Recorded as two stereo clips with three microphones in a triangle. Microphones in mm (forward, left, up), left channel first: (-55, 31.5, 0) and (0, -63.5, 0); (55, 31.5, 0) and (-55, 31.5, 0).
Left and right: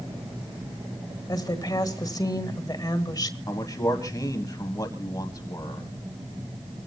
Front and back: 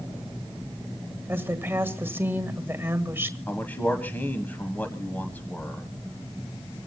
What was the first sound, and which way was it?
A woman speaking, 125° left.